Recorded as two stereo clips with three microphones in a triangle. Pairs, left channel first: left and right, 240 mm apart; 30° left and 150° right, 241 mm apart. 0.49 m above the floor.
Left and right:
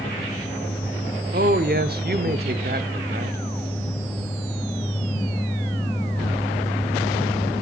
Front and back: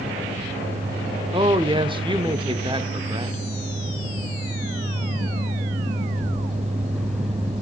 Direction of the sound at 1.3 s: 90° right.